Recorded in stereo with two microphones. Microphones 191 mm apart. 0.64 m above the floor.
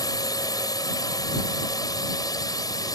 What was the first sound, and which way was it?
A drone, 20° left (ahead or behind).